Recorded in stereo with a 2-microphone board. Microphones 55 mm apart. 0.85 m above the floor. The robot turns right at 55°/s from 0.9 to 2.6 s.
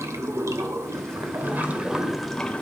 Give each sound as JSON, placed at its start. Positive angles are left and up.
{"t": 0.0, "sound": "running water", "azimuth_deg": -70, "distance_m": 1.9}